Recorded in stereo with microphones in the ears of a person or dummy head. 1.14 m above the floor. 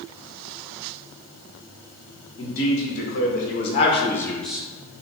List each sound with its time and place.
2.4 s a man speaking: 55° left (ahead or behind), 1.3 m; by 5.0 s 20° right (ahead or behind), 0.7 m